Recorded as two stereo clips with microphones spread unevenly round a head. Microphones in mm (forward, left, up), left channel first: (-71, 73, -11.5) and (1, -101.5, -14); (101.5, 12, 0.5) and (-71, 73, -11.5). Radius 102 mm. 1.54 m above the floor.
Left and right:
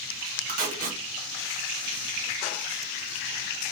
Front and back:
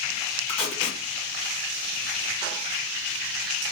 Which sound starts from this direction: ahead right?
Tape being pulled, at 0.5 s.